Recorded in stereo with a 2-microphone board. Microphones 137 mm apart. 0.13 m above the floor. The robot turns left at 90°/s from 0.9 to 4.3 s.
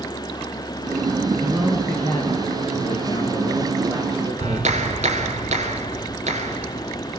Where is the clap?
55° right (ahead or behind), 1.9 m.